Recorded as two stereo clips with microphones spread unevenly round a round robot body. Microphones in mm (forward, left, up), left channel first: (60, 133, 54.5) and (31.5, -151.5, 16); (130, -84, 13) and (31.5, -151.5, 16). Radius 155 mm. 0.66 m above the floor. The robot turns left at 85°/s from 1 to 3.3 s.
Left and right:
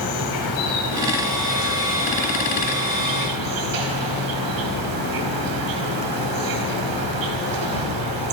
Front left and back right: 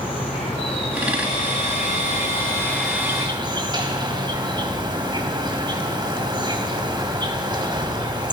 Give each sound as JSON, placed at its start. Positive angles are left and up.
{"t": 0.0, "sound": "an insect", "azimuth_deg": 100, "distance_m": 4.5}